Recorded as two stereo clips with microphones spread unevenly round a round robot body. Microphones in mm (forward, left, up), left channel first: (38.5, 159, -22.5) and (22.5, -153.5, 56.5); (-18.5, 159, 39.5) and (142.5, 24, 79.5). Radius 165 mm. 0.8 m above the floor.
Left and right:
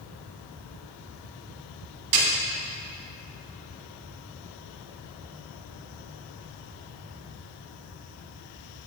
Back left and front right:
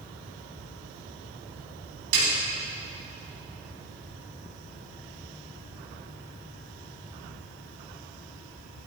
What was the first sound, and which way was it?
A snare drum, 65° right.